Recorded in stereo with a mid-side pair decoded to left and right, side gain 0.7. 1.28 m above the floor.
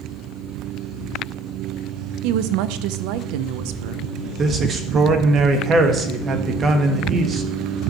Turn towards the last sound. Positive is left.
turn(degrees=-35)